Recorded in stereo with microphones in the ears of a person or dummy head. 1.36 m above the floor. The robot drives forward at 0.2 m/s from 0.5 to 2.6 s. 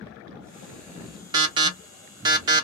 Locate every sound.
1.3 s an alarm: 25° right (ahead or behind), 0.6 m; by 2.6 s 20° right (ahead or behind), 0.7 m